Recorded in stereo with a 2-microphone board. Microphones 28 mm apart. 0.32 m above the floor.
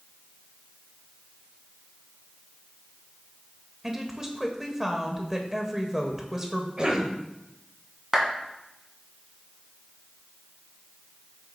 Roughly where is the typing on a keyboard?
I don't hear typing on a keyboard.